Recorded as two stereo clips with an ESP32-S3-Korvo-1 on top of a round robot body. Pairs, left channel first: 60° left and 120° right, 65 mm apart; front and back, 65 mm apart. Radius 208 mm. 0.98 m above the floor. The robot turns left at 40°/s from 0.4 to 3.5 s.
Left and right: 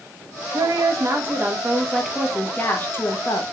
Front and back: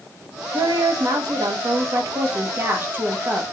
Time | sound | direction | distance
0.5 | a woman speaking | 145° right | 1.1 m